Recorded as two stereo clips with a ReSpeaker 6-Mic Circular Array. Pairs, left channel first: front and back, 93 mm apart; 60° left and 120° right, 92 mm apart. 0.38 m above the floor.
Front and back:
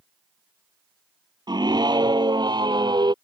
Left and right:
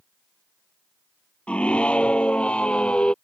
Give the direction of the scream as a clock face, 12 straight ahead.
7 o'clock.